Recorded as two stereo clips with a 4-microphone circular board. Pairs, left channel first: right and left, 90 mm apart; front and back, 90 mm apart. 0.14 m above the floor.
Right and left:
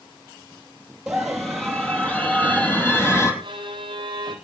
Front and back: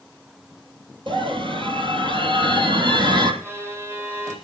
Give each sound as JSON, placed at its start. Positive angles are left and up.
{"t": 1.1, "sound": "a scream", "azimuth_deg": 175, "distance_m": 3.0}
{"t": 3.4, "sound": "a violin", "azimuth_deg": 120, "distance_m": 3.0}